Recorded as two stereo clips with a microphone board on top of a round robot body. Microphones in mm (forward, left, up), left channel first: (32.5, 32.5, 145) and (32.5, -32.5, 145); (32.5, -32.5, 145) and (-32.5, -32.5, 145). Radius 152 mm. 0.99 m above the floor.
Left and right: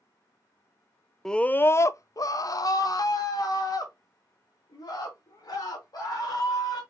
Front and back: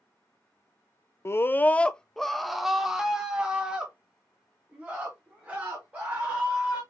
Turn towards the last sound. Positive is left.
turn(degrees=110)